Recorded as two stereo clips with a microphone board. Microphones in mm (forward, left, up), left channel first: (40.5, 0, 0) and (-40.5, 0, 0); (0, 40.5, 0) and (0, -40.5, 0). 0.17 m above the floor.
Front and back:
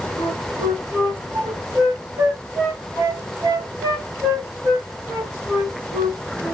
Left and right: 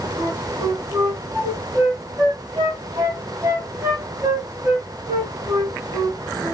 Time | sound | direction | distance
0.2 | a flute | 135° right | 2.5 m